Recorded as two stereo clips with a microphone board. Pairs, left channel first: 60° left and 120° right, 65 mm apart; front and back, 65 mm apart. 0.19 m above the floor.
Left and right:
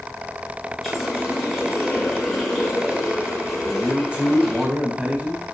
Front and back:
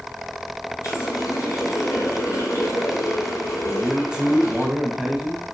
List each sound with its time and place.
0.8 s a running tap: 30° right, 4 m
3.6 s a man speaking: 135° right, 1.2 m